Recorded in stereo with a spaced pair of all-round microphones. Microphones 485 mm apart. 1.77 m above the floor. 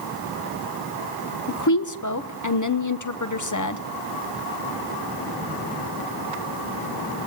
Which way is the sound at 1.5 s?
35° left (ahead or behind).